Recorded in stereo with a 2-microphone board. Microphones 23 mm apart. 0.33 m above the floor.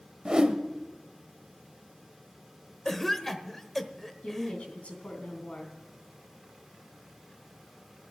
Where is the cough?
15° left (ahead or behind), 1.0 m.